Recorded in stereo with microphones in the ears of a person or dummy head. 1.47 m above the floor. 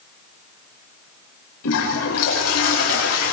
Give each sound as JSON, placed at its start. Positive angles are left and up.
{"t": 1.6, "sound": "a toilet flushing", "side_deg": 80, "distance_m": 7.0}